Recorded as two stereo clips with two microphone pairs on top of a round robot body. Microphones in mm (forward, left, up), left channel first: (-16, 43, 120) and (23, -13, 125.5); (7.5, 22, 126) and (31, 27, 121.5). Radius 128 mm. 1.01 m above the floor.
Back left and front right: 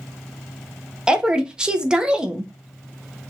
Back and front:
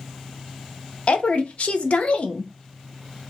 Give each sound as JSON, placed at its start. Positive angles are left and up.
{"t": 1.1, "sound": "a woman speaking", "azimuth_deg": -135, "distance_m": 0.5}